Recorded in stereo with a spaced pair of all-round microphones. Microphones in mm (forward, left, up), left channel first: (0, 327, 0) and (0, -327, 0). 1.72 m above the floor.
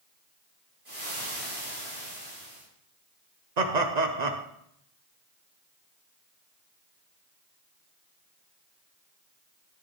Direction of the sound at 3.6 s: 85° right.